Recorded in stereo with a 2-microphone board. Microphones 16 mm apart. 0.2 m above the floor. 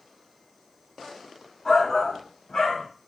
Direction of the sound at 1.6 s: 30° left (ahead or behind).